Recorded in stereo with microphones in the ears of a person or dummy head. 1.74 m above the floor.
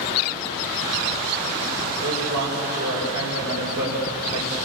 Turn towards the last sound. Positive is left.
turn(degrees=-85)